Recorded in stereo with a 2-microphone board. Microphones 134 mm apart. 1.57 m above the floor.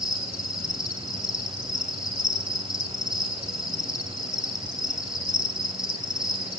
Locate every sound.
0.0 s an insect: 5° right (ahead or behind), 6.5 m